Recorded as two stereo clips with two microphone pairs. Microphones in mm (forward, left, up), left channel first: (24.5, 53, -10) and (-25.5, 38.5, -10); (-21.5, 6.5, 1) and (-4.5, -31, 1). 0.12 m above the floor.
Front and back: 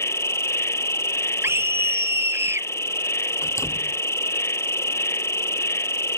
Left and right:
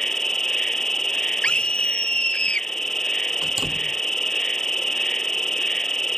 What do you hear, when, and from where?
0.0 s an insect: 35° left
1.4 s a scream: 175° left
3.4 s a door slam: 10° left